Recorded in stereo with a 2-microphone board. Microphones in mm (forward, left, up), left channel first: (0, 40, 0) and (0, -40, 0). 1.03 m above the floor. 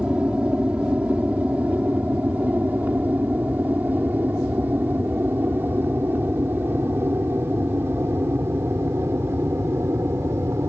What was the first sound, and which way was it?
An aircraft, 15° right (ahead or behind).